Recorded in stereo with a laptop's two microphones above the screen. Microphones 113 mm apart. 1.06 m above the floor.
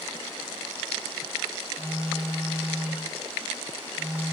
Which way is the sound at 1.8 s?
15° right (ahead or behind).